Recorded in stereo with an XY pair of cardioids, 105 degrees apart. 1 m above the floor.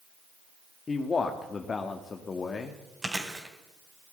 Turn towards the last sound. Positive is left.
turn(degrees=-15)